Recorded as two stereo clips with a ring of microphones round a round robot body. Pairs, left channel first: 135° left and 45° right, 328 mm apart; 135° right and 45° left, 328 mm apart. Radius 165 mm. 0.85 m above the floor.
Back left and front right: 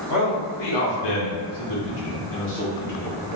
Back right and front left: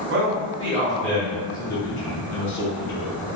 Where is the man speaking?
105° left, 0.9 m; by 3.3 s 160° right, 1.4 m.